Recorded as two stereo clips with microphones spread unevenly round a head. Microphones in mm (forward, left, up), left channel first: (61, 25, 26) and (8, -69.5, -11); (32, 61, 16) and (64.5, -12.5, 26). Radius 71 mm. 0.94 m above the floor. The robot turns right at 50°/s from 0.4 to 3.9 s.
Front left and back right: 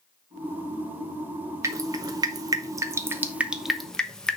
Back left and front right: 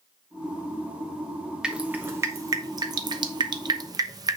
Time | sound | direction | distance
1.6 | dripping | 150° right | 1.1 m